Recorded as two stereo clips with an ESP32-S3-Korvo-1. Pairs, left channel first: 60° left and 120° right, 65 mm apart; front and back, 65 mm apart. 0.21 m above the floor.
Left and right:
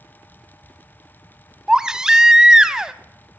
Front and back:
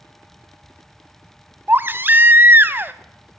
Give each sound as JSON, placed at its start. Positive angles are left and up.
{"t": 1.7, "sound": "a baby crying", "azimuth_deg": 170, "distance_m": 0.7}